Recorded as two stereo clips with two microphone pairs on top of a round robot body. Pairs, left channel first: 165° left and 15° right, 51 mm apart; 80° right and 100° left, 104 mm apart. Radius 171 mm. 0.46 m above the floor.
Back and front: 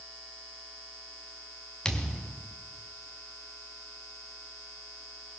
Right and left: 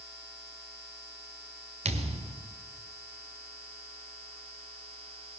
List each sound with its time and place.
1.9 s a thud: 90° left, 1.6 m